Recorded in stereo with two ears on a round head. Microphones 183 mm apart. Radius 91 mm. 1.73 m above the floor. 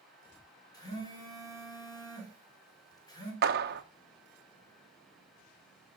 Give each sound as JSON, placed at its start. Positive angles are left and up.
{"t": 0.7, "sound": "a phone buzzing", "side_deg": 20, "distance_m": 5.0}
{"t": 3.4, "sound": "a clap", "side_deg": -50, "distance_m": 1.3}